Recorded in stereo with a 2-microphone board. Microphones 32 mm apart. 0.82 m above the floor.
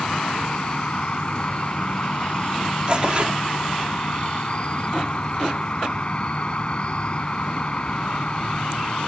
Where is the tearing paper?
35° right (ahead or behind).